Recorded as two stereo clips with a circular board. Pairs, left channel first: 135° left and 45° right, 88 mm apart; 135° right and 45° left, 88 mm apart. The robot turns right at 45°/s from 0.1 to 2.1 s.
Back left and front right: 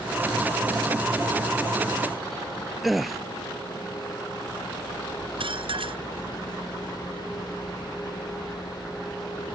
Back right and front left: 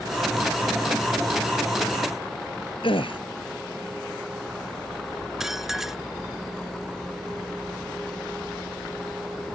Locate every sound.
2.8 s a gasp: 135° right
5.4 s dishes clattering: 40° right